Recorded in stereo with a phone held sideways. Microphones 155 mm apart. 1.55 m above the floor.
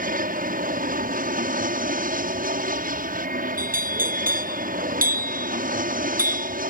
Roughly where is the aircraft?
Right.